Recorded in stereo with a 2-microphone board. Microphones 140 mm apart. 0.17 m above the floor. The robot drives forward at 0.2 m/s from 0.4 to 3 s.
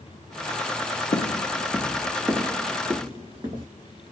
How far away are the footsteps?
About 0.5 m.